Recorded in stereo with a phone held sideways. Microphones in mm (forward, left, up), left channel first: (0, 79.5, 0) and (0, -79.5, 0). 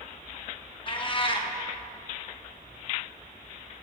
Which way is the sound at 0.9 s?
35° left (ahead or behind).